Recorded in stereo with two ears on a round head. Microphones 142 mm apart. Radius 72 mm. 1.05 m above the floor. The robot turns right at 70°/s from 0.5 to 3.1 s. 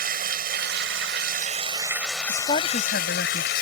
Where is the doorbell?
I don't hear a doorbell.